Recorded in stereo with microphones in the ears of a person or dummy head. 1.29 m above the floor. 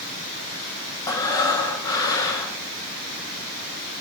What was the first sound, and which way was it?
Breathing, 25° left (ahead or behind).